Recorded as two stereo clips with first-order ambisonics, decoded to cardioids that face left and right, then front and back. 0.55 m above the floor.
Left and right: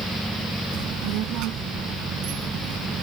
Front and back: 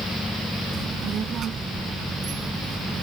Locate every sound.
0.7 s a child speaking: 120° right